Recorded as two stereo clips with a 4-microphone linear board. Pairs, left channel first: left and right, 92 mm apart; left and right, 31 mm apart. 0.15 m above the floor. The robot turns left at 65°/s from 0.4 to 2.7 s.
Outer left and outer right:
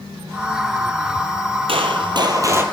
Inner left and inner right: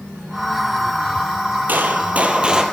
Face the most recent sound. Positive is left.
turn(degrees=-160)